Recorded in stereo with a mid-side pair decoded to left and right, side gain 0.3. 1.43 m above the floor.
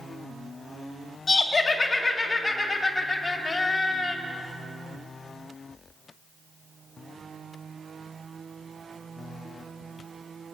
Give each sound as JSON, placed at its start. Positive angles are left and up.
{"t": 1.3, "sound": "laughter", "azimuth_deg": 50, "distance_m": 3.0}